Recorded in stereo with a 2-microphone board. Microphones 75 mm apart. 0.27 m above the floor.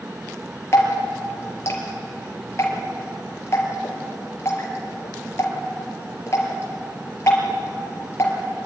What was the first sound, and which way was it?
Dripping, 40° left (ahead or behind).